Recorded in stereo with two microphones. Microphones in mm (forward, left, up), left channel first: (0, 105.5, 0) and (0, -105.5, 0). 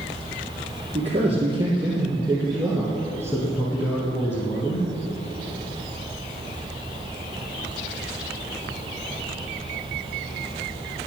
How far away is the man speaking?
About 2.5 m.